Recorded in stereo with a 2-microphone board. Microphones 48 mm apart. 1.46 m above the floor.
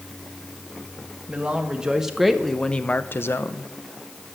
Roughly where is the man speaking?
Right.